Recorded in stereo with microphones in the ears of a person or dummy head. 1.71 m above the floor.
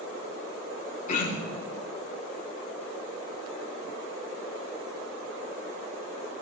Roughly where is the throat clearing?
Left.